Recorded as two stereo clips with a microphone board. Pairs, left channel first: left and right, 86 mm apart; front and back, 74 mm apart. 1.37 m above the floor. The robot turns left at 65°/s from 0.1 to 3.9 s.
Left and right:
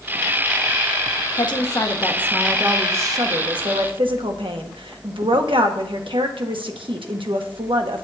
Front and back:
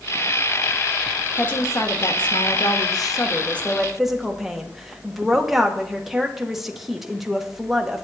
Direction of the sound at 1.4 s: 70° left.